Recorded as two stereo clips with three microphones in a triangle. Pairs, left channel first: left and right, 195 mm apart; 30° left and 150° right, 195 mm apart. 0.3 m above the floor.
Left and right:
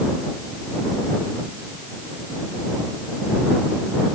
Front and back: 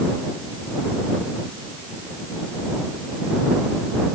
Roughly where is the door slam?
No door slam in this recording.